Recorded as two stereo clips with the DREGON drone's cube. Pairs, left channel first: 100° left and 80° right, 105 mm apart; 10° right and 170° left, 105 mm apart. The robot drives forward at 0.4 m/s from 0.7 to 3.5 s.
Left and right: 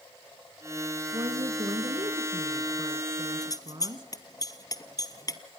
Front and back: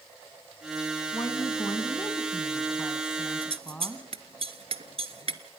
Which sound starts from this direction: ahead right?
A woman speaking, at 1.1 s.